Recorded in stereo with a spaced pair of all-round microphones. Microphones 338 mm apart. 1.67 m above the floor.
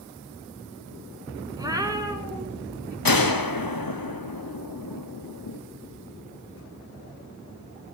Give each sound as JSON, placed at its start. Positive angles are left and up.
{"t": 1.6, "sound": "a cat meowing", "side_deg": -10, "distance_m": 2.0}
{"t": 3.0, "sound": "a gunshot", "side_deg": 85, "distance_m": 1.2}